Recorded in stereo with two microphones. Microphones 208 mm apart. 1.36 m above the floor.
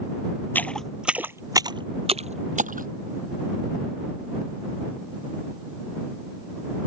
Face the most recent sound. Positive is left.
turn(degrees=-40)  # may be behind; listen again after turning